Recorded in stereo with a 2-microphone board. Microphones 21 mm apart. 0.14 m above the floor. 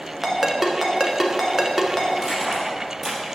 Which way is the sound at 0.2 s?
20° right (ahead or behind).